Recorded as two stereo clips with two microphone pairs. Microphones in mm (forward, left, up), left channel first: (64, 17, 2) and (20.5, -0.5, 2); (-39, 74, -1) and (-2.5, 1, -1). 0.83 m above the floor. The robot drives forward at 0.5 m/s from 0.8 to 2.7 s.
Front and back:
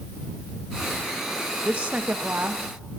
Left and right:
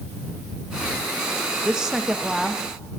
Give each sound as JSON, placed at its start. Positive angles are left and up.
{"t": 1.6, "sound": "a woman speaking", "azimuth_deg": -130, "distance_m": 0.8}